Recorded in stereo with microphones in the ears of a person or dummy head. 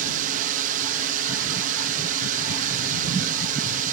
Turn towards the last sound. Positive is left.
turn(degrees=-45)  # may be behind; listen again after turning